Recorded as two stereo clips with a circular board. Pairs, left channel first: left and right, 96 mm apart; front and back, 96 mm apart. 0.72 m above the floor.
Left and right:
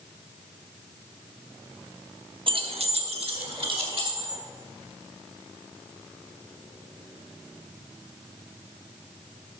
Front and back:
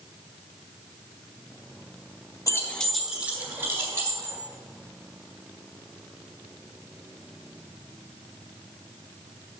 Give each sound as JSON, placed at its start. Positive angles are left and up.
{"t": 2.5, "sound": "keys jangling", "azimuth_deg": -55, "distance_m": 0.7}